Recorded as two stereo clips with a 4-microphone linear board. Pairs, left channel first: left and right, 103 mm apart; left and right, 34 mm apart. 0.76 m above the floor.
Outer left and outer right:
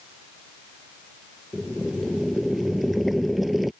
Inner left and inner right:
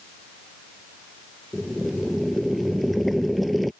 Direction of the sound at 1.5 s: Centre (ahead or behind).